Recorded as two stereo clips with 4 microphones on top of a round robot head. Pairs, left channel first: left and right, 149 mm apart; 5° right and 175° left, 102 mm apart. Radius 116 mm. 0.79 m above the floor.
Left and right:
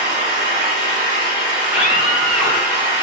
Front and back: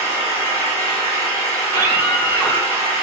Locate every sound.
0.0 s an engine running: 40° right, 1.2 m
1.6 s a scream: 15° right, 1.1 m